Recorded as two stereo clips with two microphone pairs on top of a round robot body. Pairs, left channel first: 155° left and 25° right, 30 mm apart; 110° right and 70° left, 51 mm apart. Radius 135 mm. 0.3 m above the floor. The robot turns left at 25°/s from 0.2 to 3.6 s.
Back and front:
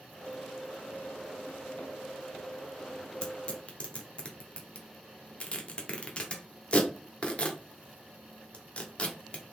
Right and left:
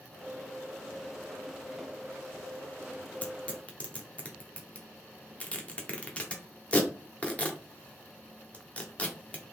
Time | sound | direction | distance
3.2 | tearing paper | 160° right | 1.4 m